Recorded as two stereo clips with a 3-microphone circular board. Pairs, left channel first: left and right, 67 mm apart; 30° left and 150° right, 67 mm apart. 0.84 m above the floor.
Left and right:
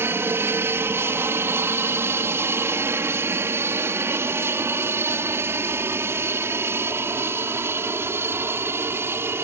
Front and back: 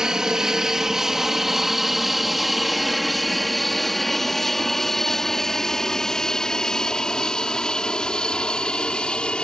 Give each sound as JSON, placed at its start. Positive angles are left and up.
{"t": 0.0, "sound": "an aircraft", "azimuth_deg": -75}